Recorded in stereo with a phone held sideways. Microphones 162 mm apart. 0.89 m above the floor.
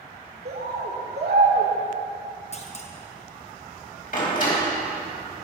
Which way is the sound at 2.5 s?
40° left (ahead or behind).